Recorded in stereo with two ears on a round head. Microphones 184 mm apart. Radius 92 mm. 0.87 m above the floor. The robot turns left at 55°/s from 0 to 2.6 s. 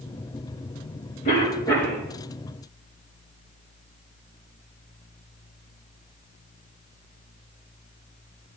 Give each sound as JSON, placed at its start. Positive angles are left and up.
{"t": 1.2, "sound": "a cough", "azimuth_deg": 40, "distance_m": 4.5}